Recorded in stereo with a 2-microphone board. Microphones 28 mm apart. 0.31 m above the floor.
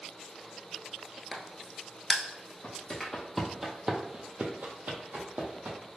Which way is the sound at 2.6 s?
20° left (ahead or behind).